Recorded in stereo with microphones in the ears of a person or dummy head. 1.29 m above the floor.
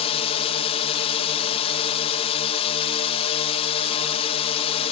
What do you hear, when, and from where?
0.0 s a drone: 30° left (ahead or behind)